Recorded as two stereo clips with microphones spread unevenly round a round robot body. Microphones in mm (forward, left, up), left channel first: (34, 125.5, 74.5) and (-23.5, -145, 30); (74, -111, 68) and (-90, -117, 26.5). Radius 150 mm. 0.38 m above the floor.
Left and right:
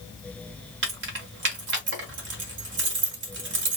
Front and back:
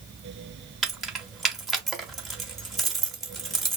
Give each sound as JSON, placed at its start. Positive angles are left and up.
{"t": 0.8, "sound": "keys jangling", "azimuth_deg": -100, "distance_m": 1.1}